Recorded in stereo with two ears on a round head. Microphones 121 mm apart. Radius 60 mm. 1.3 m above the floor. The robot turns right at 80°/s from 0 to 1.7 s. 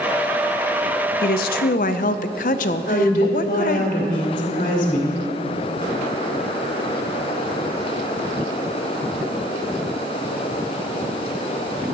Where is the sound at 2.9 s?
65° left (ahead or behind), 2.5 m.